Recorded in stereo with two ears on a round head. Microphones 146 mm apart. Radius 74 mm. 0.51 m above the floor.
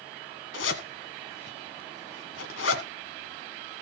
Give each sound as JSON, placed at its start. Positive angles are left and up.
{"t": 0.5, "sound": "a zipper", "side_deg": 90, "distance_m": 1.6}